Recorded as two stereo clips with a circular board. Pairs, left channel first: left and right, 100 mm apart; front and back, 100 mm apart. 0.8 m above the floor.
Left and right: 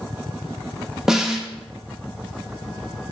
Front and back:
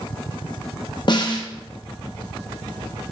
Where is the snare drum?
5° right, 0.6 m.